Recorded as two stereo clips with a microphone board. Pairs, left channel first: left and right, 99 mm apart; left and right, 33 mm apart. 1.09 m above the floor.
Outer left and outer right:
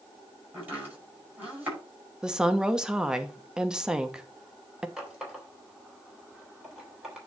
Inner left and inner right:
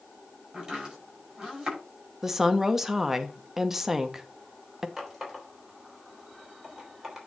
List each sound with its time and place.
0.5 s chopping: 15° right (ahead or behind), 6 m
2.2 s a woman speaking: 5° right (ahead or behind), 1.0 m
5.0 s a running tap: 5° right (ahead or behind), 3.5 m